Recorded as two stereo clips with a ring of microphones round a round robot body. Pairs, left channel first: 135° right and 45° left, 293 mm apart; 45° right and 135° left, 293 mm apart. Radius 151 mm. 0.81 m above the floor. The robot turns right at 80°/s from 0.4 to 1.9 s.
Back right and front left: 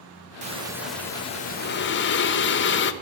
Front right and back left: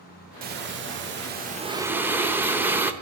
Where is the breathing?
95° left, 0.8 m; by 2.9 s 145° right, 0.8 m.